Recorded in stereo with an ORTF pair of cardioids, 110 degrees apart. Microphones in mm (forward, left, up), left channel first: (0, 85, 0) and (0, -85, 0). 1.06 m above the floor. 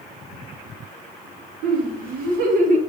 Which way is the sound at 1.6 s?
70° right.